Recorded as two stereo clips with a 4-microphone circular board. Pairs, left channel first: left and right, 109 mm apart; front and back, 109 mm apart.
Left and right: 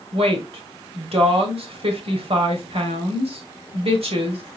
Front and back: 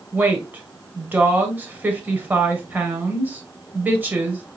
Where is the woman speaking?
105° right, 1.6 m.